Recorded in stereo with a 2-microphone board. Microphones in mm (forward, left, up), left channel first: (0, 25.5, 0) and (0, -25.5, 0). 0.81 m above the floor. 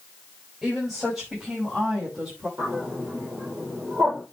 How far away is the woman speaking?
About 5.5 m.